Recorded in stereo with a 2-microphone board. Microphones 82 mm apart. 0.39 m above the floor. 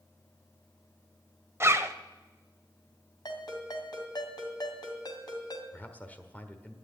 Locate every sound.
1.6 s a zipper: 35° right (ahead or behind), 0.7 m
3.2 s a ringtone: 60° left (ahead or behind), 2 m
5.7 s a man speaking: 20° left (ahead or behind), 1.3 m